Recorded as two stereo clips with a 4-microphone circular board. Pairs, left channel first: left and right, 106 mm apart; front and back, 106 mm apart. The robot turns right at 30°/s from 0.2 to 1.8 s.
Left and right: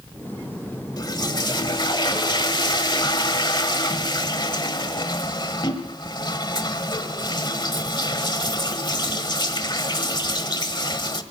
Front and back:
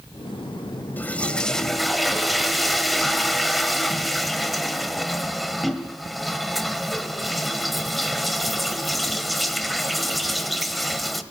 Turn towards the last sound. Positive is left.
turn(degrees=90)